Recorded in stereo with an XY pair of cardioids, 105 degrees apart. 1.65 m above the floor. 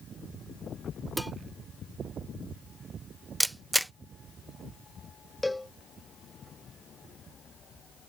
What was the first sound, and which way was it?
Dishes clattering, straight ahead.